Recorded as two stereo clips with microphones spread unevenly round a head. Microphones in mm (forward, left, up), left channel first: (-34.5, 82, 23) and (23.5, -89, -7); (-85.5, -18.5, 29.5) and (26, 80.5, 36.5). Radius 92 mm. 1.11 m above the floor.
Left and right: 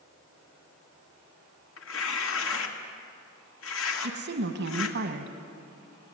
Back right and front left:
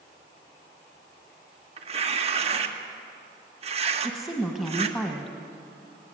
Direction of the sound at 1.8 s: 90° left.